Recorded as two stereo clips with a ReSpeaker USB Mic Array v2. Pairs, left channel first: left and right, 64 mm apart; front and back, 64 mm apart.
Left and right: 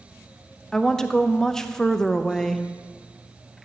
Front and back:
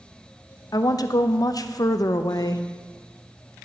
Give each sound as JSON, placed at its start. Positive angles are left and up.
{"t": 0.7, "sound": "a woman speaking", "azimuth_deg": 10, "distance_m": 0.5}